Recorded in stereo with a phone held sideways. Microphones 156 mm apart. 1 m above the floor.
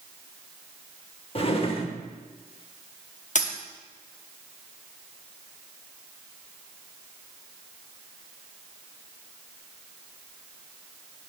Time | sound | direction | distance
1.4 | a drawer | 40° left (ahead or behind) | 0.7 m
3.4 | a dropped coin | 50° left (ahead or behind) | 0.8 m